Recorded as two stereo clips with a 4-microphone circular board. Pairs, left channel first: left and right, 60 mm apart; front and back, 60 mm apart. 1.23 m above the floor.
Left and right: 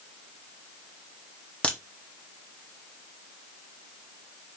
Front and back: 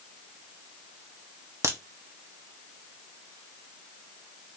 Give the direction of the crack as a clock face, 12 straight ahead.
7 o'clock.